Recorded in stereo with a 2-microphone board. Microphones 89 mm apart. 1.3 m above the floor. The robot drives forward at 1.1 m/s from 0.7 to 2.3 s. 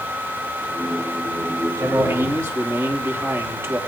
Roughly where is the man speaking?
Right.